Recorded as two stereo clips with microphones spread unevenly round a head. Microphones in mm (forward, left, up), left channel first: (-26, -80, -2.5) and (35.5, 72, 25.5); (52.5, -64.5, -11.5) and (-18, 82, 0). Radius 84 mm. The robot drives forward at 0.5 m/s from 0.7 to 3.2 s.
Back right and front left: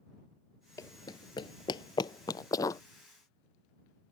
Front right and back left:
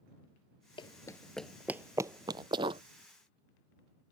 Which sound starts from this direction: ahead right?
Running footsteps, at 0.8 s.